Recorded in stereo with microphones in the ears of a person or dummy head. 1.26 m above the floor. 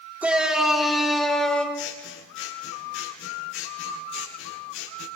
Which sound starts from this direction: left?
Scissors, at 1.7 s.